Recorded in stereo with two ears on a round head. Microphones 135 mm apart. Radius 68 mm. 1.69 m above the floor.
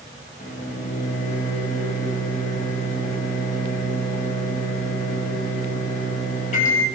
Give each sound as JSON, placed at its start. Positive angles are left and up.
{"t": 0.4, "sound": "a microwave", "side_deg": 50, "distance_m": 1.7}